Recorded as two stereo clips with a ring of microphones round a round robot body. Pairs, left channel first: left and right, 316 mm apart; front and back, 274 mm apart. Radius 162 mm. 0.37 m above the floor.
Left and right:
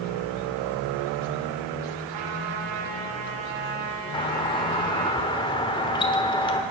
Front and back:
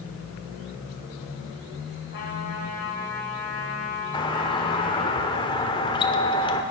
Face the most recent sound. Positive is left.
turn(degrees=40)